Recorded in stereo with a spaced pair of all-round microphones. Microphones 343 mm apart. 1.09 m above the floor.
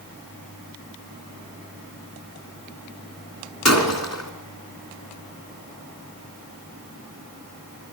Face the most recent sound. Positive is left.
turn(degrees=50)  # may be behind; listen again after turning